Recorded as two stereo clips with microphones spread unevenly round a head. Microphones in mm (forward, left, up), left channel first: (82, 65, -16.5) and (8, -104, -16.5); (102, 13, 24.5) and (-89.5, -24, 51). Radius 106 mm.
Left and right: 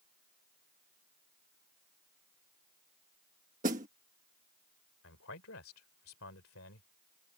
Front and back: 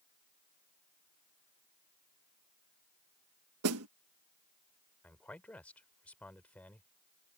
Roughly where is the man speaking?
Left.